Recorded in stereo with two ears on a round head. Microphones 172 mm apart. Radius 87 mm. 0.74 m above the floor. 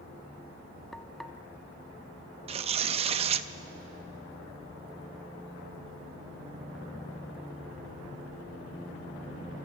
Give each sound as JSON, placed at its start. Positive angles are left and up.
{"t": 0.9, "sound": "frying", "side_deg": 0, "distance_m": 0.8}
{"t": 2.5, "sound": "tearing paper", "side_deg": -30, "distance_m": 0.5}